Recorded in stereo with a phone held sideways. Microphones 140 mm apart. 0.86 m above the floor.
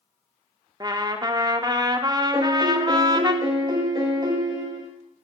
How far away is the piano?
About 1.2 m.